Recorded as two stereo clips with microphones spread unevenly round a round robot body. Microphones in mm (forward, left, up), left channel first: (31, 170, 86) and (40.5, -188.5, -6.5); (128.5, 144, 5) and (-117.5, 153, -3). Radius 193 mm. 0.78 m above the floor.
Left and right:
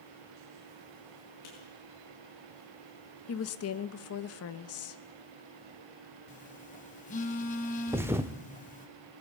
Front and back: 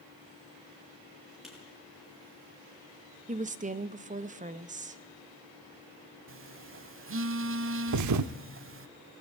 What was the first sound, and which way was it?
Writing, 90° left.